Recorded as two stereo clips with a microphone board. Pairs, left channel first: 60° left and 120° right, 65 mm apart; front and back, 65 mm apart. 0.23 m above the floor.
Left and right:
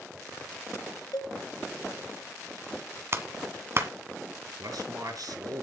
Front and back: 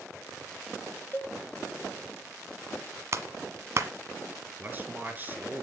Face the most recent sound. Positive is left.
turn(degrees=-120)